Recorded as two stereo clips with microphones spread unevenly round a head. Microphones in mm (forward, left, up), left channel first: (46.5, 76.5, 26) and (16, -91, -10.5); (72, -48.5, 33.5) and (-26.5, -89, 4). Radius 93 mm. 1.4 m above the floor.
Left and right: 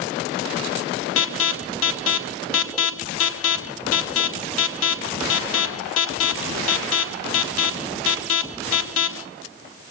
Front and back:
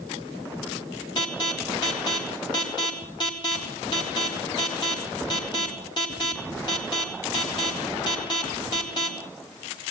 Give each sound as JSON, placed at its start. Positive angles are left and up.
{"t": 1.2, "sound": "an alarm", "azimuth_deg": 90, "distance_m": 1.0}